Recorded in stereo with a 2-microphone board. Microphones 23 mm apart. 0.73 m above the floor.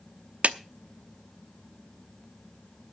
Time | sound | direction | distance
0.4 | a clap | 70° right (ahead or behind) | 0.8 m